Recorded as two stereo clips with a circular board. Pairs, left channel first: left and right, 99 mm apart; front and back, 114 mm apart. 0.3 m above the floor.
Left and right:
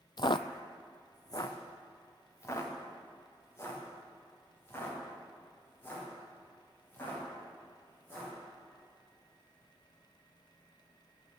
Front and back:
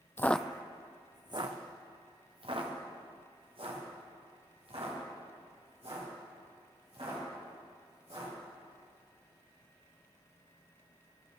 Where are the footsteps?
60° left, 0.5 m; by 8.3 s 155° left, 7.5 m.